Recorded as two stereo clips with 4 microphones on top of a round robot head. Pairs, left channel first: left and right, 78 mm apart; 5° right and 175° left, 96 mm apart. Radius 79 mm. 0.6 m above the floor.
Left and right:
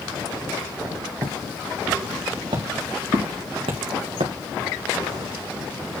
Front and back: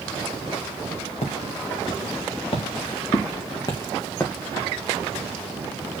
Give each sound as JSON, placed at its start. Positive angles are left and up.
{"t": 1.2, "sound": "footsteps", "azimuth_deg": -35, "distance_m": 3.5}